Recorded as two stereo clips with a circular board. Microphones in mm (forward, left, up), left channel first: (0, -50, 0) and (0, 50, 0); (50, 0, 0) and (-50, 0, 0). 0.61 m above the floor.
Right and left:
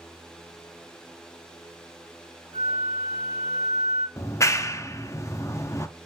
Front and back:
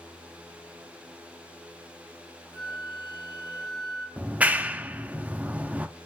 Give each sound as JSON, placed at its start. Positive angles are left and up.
{"t": 2.5, "sound": "a flute", "azimuth_deg": 30, "distance_m": 2.0}
{"t": 4.2, "sound": "a clap", "azimuth_deg": -115, "distance_m": 0.5}